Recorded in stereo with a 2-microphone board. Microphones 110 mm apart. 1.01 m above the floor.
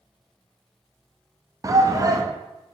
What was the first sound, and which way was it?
A shout, 30° right (ahead or behind).